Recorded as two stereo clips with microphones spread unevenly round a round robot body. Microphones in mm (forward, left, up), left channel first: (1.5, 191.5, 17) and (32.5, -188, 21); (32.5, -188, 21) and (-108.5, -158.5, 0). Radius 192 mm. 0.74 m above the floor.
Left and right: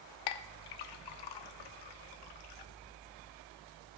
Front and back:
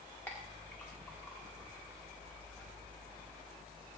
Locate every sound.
0.3 s a clink: 75° left, 1.0 m